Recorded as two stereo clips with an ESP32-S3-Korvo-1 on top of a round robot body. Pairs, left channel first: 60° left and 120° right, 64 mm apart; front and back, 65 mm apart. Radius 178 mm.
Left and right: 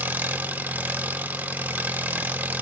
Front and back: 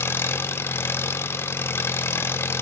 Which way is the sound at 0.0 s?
55° right.